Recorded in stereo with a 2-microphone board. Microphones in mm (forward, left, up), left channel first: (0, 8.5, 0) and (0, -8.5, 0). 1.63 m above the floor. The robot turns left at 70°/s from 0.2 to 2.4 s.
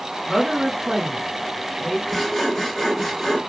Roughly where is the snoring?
I don't hear snoring.